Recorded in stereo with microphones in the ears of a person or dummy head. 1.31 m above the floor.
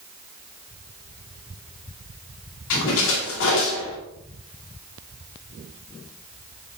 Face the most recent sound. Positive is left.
turn(degrees=70)  # may be behind; listen again after turning